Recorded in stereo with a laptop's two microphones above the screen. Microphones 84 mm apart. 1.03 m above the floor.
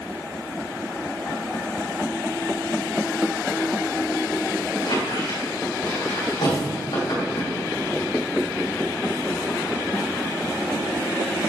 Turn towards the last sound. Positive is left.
turn(degrees=80)